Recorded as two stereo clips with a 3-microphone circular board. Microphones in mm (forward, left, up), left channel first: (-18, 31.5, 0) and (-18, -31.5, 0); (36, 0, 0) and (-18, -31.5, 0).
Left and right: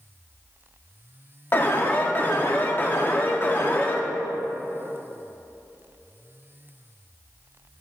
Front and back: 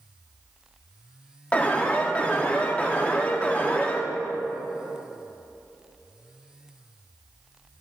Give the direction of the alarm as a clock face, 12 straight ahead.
9 o'clock.